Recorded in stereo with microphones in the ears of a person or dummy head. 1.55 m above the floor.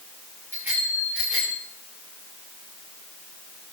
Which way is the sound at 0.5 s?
5° right (ahead or behind).